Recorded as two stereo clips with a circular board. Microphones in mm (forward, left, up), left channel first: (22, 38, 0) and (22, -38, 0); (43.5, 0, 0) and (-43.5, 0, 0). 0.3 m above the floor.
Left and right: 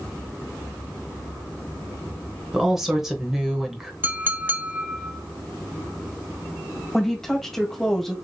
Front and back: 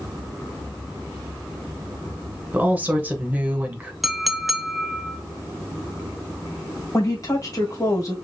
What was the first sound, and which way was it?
A woman speaking, 165° right.